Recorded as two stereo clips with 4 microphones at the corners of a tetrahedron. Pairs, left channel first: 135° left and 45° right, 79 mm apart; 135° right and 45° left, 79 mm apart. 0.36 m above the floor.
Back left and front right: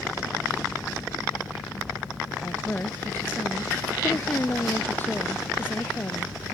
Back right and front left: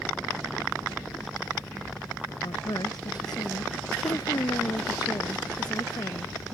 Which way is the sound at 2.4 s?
160° right.